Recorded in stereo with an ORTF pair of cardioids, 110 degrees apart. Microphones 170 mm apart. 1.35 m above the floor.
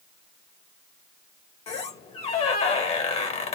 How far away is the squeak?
About 0.7 m.